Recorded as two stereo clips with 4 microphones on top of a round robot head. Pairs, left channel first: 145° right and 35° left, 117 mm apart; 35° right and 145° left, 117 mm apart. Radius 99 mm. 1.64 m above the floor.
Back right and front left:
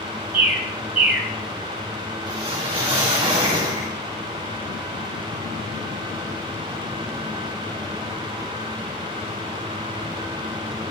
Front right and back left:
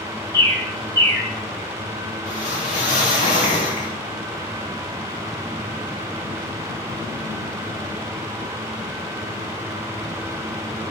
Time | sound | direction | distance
0.3 | a bird | 30° left | 1.9 m
2.3 | a whoosh | 10° right | 3.5 m